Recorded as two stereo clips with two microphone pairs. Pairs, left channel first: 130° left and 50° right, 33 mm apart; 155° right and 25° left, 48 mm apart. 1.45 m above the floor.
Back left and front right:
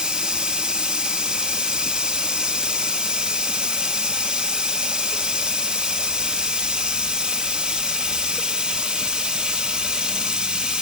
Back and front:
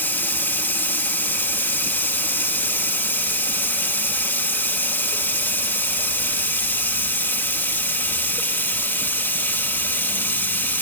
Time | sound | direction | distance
0.0 | running water | 110° right | 1.3 m